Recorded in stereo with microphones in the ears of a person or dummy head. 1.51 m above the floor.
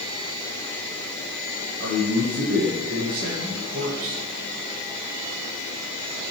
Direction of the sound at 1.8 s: 50° right (ahead or behind).